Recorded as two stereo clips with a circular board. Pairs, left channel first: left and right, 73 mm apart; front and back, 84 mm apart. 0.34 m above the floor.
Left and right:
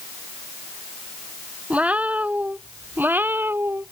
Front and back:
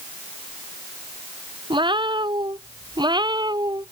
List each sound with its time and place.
1.7 s a cat meowing: 160° right; by 3.9 s 145° right